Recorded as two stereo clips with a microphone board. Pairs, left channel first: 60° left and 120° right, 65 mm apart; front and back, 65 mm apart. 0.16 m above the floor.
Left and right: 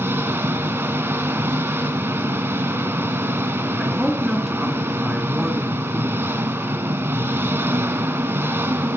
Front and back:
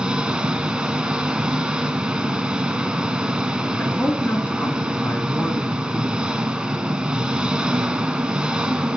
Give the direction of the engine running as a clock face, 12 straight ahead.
4 o'clock.